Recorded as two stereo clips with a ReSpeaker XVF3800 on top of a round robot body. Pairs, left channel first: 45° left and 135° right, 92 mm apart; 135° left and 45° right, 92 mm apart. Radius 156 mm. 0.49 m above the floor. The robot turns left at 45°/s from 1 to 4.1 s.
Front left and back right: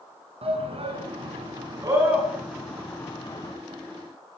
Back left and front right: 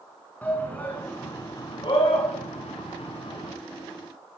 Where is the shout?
150° right, 7 m; by 3.5 s 95° left, 7 m.